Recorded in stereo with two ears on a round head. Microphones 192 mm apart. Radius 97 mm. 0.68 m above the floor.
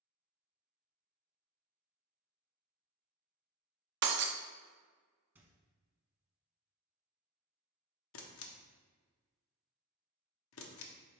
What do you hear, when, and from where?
4.0 s breaking glass: 50° right (ahead or behind), 0.5 m
5.3 s a squeak: 10° right (ahead or behind), 0.8 m
8.1 s a camera shutter: 60° left (ahead or behind), 0.6 m